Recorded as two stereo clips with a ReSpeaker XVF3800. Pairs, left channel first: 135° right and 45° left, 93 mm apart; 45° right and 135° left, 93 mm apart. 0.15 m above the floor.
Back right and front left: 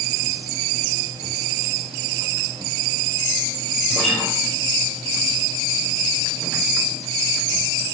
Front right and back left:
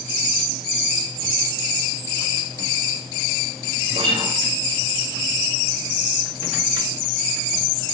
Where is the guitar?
150° left, 6 m.